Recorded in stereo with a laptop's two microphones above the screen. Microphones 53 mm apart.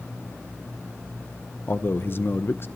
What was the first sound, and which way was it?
A man speaking, 45° left (ahead or behind).